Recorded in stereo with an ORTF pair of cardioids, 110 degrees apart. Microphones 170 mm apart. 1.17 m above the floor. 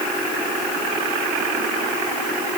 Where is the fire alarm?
No fire alarm in this recording.